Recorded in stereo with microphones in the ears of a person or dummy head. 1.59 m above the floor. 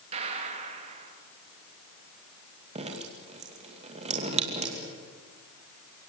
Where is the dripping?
30° right (ahead or behind), 2.5 m.